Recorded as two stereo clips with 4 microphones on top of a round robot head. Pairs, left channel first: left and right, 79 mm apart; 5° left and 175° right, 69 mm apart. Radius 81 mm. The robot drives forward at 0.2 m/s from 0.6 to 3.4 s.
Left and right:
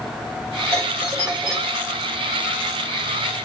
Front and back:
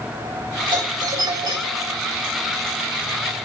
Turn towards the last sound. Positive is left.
turn(degrees=-160)